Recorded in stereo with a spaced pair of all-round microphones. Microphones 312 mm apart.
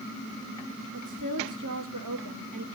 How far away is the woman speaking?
About 1.2 m.